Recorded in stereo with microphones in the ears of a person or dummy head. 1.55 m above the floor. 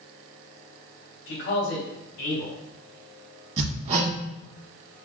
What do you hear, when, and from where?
1.3 s a man speaking: 65° left (ahead or behind), 2 m
3.6 s hammering: 35° right (ahead or behind), 1.6 m